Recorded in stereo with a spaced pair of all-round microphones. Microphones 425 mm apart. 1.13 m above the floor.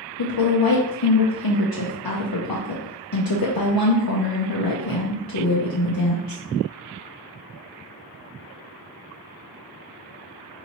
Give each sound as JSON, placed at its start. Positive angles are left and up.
{"t": 0.2, "sound": "a woman speaking", "side_deg": 55, "distance_m": 0.6}